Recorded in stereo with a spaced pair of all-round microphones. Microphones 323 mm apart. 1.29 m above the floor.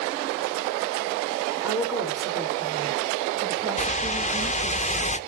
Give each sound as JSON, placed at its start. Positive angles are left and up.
{"t": 1.6, "sound": "a woman speaking", "side_deg": -5, "distance_m": 4.5}
{"t": 3.8, "sound": "a whoosh", "side_deg": 20, "distance_m": 0.8}